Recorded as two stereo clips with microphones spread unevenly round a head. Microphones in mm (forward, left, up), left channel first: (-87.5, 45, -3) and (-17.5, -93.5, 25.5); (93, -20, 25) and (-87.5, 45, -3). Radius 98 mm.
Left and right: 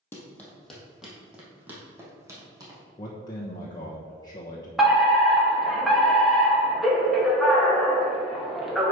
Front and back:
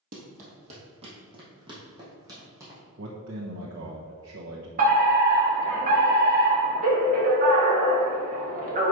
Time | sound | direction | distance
0.1 | running footsteps | 160° right | 2.0 m
3.0 | a man speaking | 175° right | 1.0 m
4.8 | a fire alarm | 155° right | 1.6 m